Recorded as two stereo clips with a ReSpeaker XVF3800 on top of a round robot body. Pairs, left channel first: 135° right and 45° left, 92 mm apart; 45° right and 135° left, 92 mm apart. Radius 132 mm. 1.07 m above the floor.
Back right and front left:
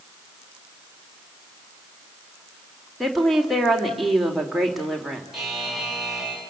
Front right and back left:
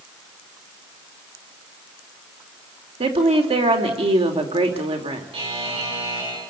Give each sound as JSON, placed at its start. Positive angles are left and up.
{"t": 3.0, "sound": "a woman speaking", "azimuth_deg": 135, "distance_m": 3.5}
{"t": 5.3, "sound": "a buzzer", "azimuth_deg": 130, "distance_m": 8.5}